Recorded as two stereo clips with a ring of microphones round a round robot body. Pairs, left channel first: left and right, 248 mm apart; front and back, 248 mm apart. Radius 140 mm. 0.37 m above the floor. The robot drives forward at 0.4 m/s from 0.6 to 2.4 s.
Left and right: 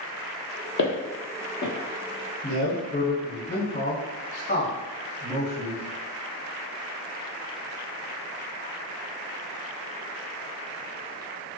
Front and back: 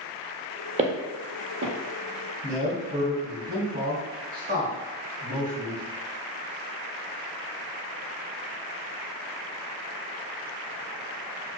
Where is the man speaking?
140° left, 1.5 m.